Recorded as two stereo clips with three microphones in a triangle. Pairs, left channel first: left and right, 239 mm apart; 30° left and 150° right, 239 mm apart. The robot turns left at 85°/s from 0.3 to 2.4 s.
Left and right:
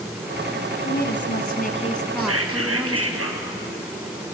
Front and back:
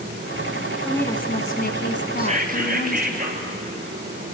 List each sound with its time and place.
0.8 s a woman speaking: 120° left, 1.6 m; by 3.2 s 10° right, 1.6 m
2.2 s whispering: 80° right, 3.5 m; by 3.5 s 100° right, 3.5 m